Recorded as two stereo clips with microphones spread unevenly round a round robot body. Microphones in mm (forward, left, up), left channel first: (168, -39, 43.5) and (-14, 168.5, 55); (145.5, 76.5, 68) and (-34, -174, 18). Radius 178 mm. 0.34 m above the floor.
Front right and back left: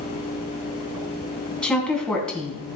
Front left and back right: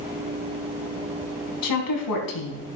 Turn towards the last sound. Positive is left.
turn(degrees=40)